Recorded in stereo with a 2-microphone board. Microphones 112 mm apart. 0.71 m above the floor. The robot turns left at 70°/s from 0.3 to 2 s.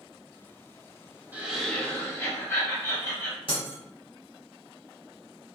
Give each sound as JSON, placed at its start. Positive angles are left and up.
{"t": 1.3, "sound": "laughter", "azimuth_deg": -160, "distance_m": 1.7}
{"t": 3.5, "sound": "breaking glass", "side_deg": 55, "distance_m": 1.3}